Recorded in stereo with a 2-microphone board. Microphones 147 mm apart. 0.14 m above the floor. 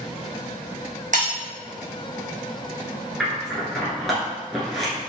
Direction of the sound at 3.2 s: Centre (ahead or behind).